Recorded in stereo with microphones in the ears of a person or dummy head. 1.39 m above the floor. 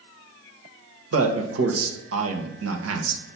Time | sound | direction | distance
1.1 | a man speaking | 80° right | 1.1 m